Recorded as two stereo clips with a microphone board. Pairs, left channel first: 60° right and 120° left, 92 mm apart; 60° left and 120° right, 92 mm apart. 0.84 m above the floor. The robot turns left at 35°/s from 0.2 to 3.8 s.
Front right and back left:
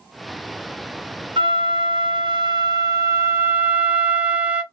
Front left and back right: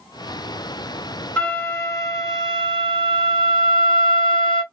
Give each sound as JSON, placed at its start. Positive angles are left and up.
{"t": 1.4, "sound": "a flute", "azimuth_deg": 130, "distance_m": 0.8}